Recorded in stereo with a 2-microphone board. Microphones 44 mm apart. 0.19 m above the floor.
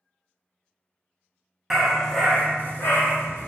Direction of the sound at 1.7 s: 10° right (ahead or behind).